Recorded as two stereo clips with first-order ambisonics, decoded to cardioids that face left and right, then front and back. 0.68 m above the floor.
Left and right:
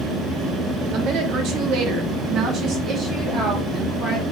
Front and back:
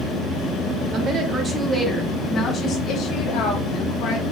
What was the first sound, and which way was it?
A woman speaking, 130° right.